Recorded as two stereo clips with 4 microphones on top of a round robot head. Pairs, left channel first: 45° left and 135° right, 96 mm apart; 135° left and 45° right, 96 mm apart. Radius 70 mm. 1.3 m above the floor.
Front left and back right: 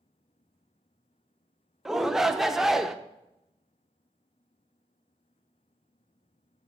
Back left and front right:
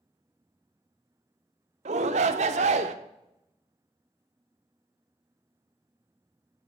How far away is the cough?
No cough in this recording.